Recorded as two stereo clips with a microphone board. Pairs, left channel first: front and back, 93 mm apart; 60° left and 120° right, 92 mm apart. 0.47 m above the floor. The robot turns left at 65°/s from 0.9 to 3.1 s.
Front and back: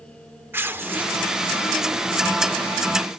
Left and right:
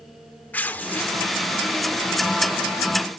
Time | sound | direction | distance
0.5 | tearing paper | 125° left | 0.7 m